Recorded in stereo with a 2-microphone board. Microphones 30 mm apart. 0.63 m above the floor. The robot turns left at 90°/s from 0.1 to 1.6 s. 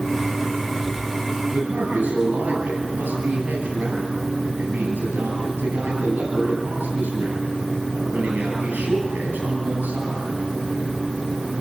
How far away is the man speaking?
About 10 m.